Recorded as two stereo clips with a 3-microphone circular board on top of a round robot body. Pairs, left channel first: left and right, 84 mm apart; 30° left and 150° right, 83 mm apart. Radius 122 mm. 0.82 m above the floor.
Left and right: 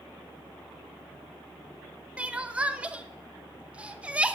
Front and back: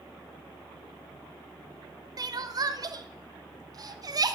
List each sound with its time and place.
2.2 s crying: 160° right, 1.1 m